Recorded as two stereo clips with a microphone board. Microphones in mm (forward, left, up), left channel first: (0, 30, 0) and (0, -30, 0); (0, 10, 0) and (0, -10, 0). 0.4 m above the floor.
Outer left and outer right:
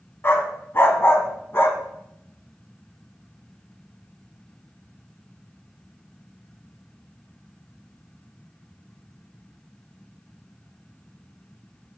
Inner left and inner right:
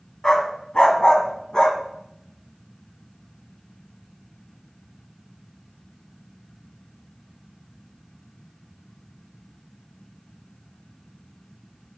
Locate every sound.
0.2 s a dog barking: 40° left (ahead or behind), 1.3 m